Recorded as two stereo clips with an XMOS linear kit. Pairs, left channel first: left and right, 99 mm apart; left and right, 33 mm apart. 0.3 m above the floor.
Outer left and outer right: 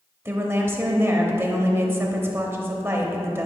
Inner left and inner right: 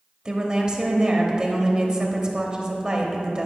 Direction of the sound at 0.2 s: 25° right (ahead or behind).